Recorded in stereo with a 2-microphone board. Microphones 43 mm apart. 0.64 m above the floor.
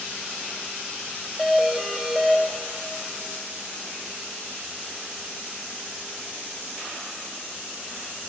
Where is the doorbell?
10° right (ahead or behind), 1.2 m.